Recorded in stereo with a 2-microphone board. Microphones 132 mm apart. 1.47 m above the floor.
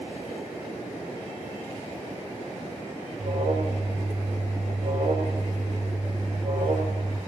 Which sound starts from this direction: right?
An alarm, at 3.2 s.